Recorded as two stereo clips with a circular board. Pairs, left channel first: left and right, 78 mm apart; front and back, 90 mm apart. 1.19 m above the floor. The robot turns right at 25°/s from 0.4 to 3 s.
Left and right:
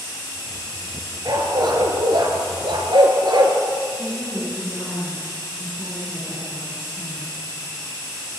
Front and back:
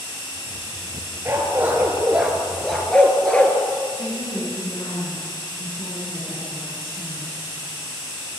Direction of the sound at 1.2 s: 120° right.